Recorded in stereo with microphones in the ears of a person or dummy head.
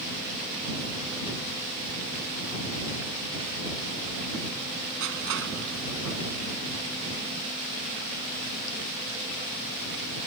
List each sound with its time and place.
5.0 s crushing: 75° right (ahead or behind)